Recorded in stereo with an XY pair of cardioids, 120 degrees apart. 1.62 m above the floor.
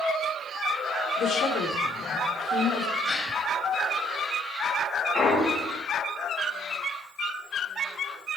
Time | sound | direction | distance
1.2 | a woman speaking | 65° left | 4 m
3.0 | a gasp | 30° left | 7 m
5.1 | a clunk | 45° left | 8.5 m